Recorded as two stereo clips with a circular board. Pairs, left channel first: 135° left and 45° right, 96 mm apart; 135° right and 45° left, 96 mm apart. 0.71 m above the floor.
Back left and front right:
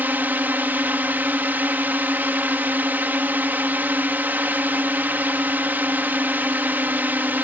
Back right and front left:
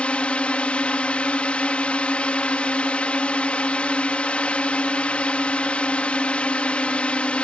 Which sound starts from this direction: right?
A drone, at 0.0 s.